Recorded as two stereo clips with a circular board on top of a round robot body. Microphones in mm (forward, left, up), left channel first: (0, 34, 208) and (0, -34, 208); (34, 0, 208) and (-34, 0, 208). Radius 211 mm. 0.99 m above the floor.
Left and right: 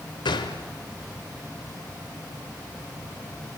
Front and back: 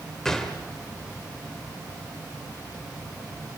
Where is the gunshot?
85° left, 1.5 m.